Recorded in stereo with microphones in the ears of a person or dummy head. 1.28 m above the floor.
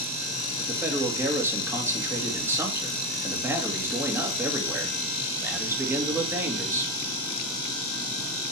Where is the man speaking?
10° right (ahead or behind), 1.7 m.